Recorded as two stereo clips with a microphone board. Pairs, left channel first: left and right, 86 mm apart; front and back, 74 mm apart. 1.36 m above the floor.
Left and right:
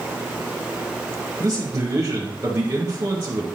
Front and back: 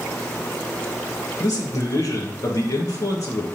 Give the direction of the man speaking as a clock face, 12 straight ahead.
1 o'clock.